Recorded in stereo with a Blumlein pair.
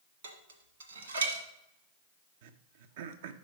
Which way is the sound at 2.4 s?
55° right.